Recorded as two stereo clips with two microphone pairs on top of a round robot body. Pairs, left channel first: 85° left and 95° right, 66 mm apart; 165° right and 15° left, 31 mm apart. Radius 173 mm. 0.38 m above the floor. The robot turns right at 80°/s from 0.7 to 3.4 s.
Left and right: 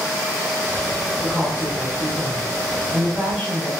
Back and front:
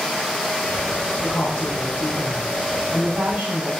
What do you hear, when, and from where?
1.2 s a woman speaking: 175° left, 4 m; by 3.7 s 15° right, 4 m